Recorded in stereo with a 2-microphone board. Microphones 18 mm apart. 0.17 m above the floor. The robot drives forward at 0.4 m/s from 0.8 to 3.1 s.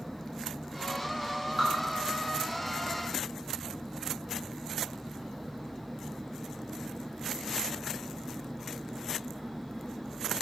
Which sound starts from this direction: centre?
Dripping, at 1.6 s.